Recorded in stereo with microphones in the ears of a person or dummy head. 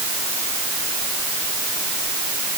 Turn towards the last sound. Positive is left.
No sound to turn to.